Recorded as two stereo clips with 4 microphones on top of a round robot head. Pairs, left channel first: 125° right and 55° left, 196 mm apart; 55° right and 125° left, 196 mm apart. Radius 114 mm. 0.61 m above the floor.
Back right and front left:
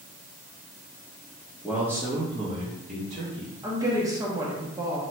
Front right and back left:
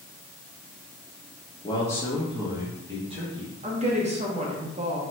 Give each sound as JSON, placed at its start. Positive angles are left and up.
{"t": 1.6, "sound": "a man speaking", "azimuth_deg": -30, "distance_m": 1.0}
{"t": 3.6, "sound": "a woman speaking", "azimuth_deg": 115, "distance_m": 1.0}